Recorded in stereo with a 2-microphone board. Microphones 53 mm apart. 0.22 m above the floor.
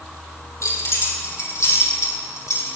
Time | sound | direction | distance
0.6 | keys jangling | 80° left | 4 m